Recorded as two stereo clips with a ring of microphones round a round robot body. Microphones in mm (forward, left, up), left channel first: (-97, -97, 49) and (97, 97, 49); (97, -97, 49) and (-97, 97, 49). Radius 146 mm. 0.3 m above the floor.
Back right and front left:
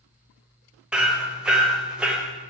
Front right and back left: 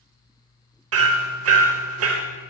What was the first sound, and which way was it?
Hammering, 130° left.